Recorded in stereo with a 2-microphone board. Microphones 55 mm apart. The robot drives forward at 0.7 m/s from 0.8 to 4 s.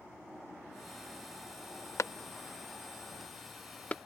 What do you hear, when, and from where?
2.0 s a clap: 65° left (ahead or behind); by 4.0 s 25° left (ahead or behind)